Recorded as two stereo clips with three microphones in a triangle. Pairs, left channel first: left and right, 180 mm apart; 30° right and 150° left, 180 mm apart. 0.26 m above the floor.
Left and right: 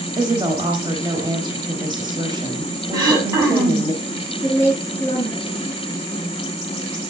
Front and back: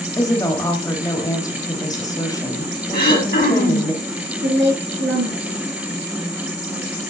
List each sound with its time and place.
0.2 s a woman speaking: 70° right, 1.1 m
2.9 s throat clearing: 25° right, 1.9 m
4.4 s a woman speaking: 165° left, 5.5 m